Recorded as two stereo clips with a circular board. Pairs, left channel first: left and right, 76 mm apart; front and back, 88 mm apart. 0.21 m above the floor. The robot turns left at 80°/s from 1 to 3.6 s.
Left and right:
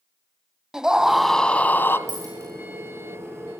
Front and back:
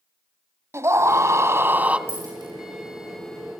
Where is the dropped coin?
120° right, 9 m; by 2.5 s 150° right, 9 m.